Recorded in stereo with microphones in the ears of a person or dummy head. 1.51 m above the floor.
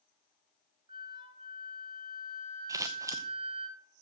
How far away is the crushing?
I don't hear crushing.